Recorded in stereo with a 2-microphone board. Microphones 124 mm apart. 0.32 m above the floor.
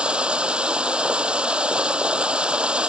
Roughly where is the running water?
Centre.